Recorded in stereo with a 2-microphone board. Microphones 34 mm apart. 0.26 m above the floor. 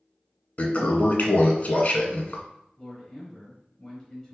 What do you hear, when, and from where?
0.6 s a toilet flushing: 45° left (ahead or behind), 0.6 m
2.8 s a man speaking: 15° left (ahead or behind), 1.1 m